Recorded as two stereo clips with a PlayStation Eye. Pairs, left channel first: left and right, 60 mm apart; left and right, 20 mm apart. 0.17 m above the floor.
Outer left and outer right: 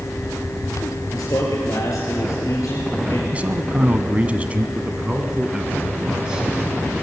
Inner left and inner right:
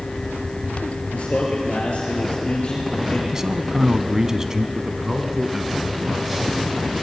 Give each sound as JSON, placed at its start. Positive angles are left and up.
{"t": 1.1, "sound": "a man speaking", "side_deg": 65, "distance_m": 3.5}
{"t": 3.3, "sound": "a man speaking", "side_deg": -25, "distance_m": 1.1}
{"t": 4.8, "sound": "a man speaking", "side_deg": -15, "distance_m": 1.3}